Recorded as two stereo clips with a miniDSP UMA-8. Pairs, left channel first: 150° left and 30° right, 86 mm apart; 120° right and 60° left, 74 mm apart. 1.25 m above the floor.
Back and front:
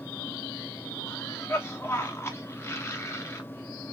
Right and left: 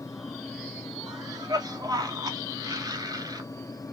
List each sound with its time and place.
1.1 s a cough: 90° left, 1.8 m